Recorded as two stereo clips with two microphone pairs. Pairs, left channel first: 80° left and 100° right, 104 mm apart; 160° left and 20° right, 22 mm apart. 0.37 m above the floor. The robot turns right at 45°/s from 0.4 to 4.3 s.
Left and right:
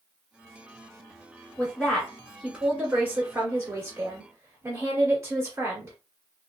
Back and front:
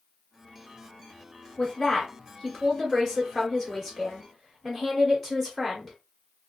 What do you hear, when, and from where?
1.6 s a woman speaking: 135° left, 1.3 m; by 6.0 s 100° right, 1.3 m